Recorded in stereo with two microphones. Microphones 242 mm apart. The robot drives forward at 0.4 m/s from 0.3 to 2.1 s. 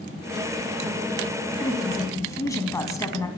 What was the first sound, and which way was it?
A woman speaking, 15° left (ahead or behind).